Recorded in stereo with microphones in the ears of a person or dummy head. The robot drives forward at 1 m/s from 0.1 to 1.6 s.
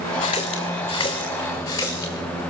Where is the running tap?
25° left (ahead or behind), 2 m; by 2.4 s 15° left (ahead or behind), 3.5 m.